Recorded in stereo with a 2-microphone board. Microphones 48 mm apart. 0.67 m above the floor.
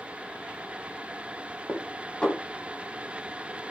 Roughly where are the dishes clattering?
Left.